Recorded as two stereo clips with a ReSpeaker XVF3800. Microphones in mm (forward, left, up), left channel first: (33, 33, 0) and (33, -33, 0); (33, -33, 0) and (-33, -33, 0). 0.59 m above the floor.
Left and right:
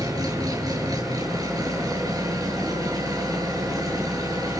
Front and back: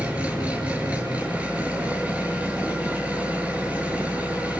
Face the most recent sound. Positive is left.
turn(degrees=-110)